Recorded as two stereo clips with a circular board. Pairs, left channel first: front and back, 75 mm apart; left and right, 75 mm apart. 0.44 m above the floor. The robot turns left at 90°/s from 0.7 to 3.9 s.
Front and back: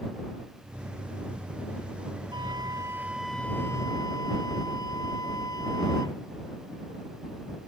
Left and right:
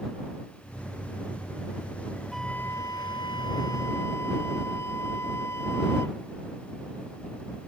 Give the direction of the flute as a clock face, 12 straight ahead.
6 o'clock.